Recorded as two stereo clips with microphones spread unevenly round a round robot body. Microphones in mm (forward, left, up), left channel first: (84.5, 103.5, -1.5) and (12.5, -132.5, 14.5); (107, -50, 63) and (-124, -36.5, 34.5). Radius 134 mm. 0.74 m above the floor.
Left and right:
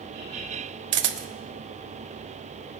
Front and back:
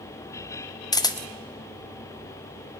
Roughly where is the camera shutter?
Right.